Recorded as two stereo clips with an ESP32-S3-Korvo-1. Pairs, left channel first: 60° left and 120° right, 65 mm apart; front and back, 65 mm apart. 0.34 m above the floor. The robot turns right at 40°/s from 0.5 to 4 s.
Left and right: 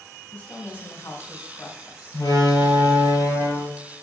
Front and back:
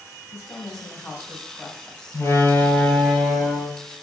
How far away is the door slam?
About 4.5 m.